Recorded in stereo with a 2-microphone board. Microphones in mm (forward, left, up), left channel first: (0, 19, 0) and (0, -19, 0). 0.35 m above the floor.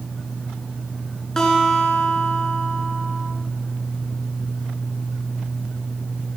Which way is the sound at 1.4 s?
15° left (ahead or behind).